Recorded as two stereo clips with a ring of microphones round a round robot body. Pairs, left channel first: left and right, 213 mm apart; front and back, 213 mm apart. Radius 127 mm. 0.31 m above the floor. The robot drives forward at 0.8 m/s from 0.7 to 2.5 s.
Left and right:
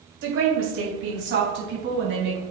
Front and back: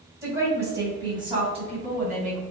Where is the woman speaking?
105° right, 2.5 m; by 2.4 s 130° right, 3.5 m.